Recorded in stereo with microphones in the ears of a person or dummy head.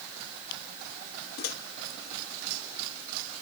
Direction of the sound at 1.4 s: 55° left (ahead or behind).